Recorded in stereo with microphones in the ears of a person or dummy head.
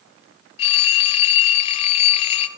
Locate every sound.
0.6 s a phone ringing: 35° left (ahead or behind), 0.6 m